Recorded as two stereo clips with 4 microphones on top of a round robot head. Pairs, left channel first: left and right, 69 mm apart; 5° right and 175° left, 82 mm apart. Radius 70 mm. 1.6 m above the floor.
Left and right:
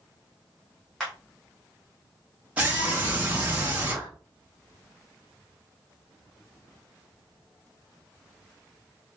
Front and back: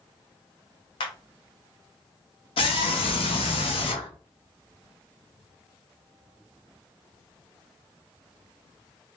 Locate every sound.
1.0 s a clap: 5° left, 0.8 m
2.6 s a scream: 15° right, 1.4 m